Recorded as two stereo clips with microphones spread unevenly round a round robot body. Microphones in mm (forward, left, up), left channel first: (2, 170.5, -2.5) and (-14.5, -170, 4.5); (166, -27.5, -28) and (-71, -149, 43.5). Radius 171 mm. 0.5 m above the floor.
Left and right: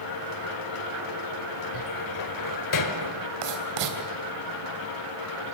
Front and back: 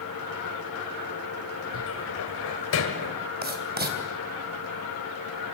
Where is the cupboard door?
60° left, 1.4 m.